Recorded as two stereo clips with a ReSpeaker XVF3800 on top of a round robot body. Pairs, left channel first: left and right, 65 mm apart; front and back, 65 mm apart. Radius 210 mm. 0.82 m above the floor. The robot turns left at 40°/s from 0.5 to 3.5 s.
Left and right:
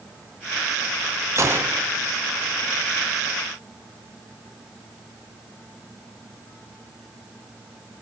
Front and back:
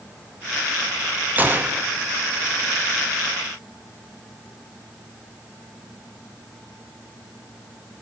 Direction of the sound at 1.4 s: 120° right.